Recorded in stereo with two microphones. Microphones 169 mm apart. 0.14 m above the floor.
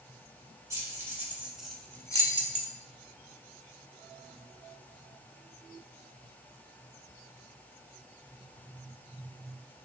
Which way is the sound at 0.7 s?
20° right (ahead or behind).